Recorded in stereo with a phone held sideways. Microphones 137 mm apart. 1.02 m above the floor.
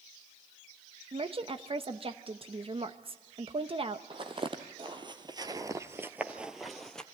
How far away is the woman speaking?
About 1.0 m.